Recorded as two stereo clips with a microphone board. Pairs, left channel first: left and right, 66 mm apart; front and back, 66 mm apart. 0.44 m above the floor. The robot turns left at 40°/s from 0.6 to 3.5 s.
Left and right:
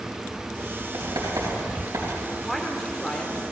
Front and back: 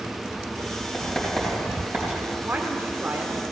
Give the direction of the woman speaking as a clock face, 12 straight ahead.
6 o'clock.